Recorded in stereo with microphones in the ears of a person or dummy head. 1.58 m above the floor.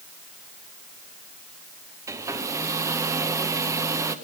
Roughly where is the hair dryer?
Centre.